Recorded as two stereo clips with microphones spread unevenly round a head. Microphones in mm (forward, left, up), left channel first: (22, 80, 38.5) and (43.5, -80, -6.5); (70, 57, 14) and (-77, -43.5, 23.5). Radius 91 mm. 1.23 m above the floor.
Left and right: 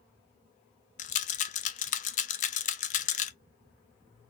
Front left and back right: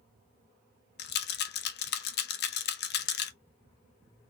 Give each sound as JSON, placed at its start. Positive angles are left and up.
{"t": 1.0, "sound": "a rattle", "azimuth_deg": 65, "distance_m": 0.5}